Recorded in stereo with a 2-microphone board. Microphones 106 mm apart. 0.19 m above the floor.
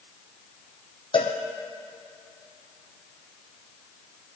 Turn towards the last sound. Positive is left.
turn(degrees=55)  # may be behind; listen again after turning